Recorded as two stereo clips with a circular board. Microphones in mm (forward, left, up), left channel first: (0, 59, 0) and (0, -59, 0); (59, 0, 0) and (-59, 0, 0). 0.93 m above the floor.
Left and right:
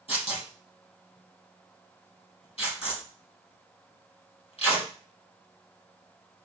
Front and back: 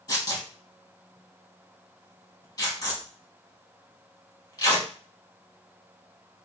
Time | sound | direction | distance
0.1 | tearing paper | 55° left | 4 m